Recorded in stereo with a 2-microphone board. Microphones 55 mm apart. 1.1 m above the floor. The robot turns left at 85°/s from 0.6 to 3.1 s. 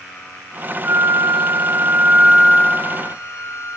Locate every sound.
0.8 s a flute: 40° right, 2 m; by 3.8 s 125° left, 2 m